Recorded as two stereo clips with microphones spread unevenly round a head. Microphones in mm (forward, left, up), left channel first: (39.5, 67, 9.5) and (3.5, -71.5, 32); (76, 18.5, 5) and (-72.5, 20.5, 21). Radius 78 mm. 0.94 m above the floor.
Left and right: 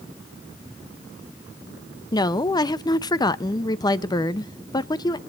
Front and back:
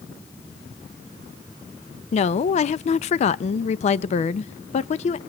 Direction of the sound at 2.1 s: 25° left.